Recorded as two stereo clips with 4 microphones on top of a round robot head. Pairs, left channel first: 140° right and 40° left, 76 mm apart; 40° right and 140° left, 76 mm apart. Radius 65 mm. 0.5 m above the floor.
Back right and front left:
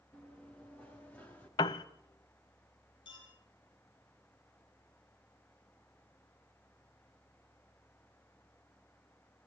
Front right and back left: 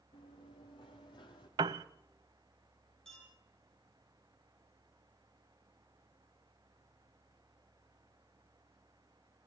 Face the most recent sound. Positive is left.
turn(degrees=-125)